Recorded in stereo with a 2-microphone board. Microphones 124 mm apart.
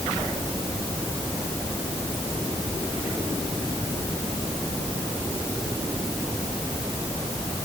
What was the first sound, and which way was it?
Only background noise.